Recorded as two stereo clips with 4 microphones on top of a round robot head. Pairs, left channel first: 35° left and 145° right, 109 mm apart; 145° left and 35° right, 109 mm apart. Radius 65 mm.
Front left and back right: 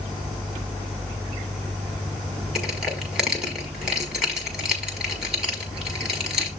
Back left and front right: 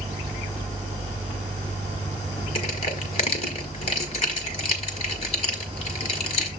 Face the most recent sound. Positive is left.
turn(degrees=135)